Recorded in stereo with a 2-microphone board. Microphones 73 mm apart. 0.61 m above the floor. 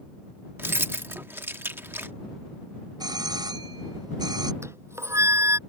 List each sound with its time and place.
0.6 s keys jangling: 30° right (ahead or behind)
3.0 s a doorbell: 70° right (ahead or behind)
4.6 s a flute: 35° right (ahead or behind)